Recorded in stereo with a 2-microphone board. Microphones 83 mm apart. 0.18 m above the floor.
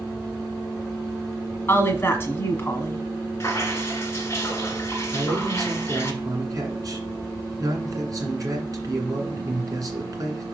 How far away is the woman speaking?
About 1.6 m.